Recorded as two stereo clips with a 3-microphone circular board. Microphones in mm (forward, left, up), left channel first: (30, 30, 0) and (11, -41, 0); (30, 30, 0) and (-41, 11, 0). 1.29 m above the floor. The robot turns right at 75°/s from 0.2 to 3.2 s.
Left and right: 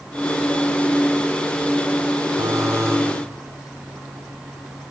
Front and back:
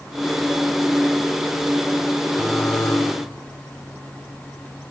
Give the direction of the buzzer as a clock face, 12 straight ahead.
3 o'clock.